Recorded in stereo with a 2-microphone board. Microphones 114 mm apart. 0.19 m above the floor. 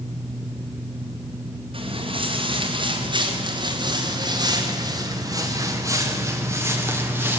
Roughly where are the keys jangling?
No keys jangling in this recording.